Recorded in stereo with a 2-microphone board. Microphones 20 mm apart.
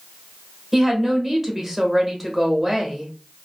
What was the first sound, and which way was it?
A woman speaking, 10° right (ahead or behind).